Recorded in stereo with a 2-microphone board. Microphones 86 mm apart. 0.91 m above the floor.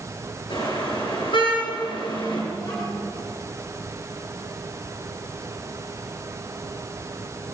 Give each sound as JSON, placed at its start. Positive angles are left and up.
{"t": 0.5, "sound": "a car horn", "side_deg": 80, "distance_m": 9.5}
{"t": 2.5, "sound": "a child speaking", "side_deg": 40, "distance_m": 5.5}